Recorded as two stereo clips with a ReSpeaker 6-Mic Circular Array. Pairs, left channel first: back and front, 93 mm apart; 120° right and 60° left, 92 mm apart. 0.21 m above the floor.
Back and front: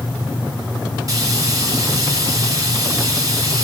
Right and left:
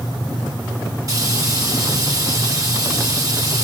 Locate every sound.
1.1 s frying: 30° left, 2.5 m